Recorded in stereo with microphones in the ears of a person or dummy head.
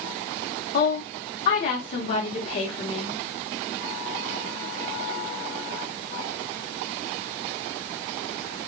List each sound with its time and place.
0.7 s a woman speaking: 40° left (ahead or behind), 0.9 m